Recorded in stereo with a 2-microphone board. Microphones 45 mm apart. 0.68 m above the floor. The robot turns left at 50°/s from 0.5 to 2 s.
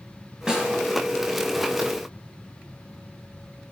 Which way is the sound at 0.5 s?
15° right (ahead or behind).